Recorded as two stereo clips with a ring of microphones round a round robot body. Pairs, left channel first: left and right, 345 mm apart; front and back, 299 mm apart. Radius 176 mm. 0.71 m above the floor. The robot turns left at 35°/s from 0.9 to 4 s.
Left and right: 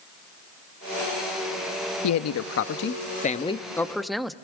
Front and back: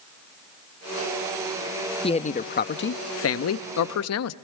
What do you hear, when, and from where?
2.0 s a man speaking: 70° left, 0.6 m; by 4.3 s straight ahead, 0.6 m